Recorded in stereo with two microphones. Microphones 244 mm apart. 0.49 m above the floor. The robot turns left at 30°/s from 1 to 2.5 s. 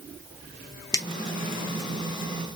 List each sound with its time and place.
0.9 s a finger snap: 15° left (ahead or behind), 0.8 m